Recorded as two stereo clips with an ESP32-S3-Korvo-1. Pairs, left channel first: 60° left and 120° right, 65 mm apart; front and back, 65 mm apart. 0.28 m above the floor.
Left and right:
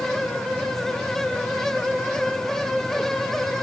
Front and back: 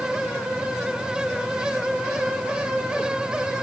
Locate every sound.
Only background noise.